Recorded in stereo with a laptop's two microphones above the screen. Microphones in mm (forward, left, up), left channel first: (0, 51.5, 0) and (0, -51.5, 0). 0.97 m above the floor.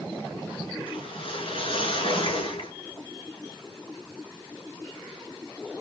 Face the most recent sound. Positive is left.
turn(degrees=65)  # may be behind; listen again after turning